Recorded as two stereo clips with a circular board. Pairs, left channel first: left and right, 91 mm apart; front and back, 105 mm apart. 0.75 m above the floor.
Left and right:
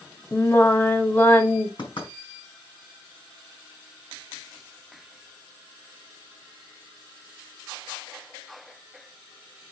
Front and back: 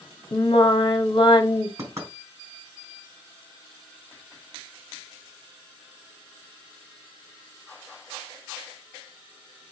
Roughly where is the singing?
Ahead left.